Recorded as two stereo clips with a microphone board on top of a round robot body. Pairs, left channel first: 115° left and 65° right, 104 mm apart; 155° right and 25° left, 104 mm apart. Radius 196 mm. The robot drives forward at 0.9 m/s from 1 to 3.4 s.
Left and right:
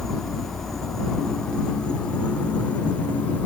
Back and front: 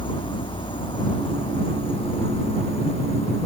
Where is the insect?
160° right; by 3.5 s 170° right.